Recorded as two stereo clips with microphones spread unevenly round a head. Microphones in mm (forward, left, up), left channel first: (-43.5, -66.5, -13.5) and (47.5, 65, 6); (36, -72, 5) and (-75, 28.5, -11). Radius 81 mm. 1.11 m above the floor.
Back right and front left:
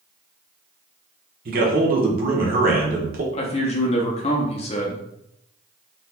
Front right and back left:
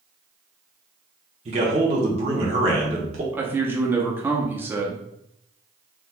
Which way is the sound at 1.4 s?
95° left.